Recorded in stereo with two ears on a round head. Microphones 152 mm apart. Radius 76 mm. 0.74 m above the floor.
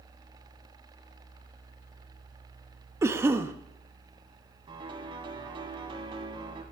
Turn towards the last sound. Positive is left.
turn(degrees=-30)  # may be behind; listen again after turning